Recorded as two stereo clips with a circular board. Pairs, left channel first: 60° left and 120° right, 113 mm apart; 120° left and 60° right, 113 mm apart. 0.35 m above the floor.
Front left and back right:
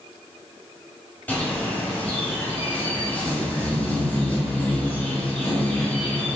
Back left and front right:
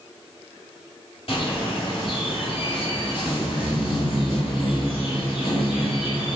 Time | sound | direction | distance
1.3 | a bird | 130° left | 1.4 m